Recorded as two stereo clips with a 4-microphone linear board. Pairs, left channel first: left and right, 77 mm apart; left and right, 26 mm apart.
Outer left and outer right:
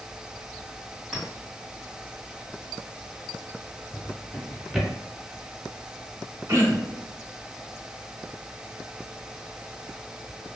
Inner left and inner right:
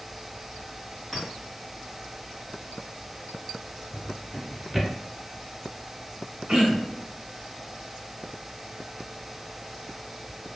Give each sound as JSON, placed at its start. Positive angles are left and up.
{"t": 1.1, "sound": "a clink", "side_deg": 10, "distance_m": 1.3}
{"t": 3.9, "sound": "a drawer", "side_deg": 0, "distance_m": 0.8}
{"t": 6.5, "sound": "throat clearing", "side_deg": -40, "distance_m": 0.7}